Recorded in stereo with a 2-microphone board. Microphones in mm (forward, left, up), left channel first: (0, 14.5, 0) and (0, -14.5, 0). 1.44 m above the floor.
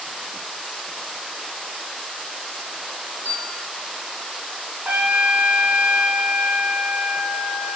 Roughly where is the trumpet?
Right.